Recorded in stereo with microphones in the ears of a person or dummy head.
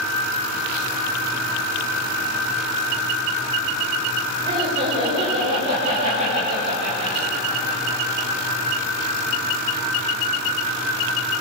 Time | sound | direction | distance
4.5 | laughter | 30° right (ahead or behind) | 7 m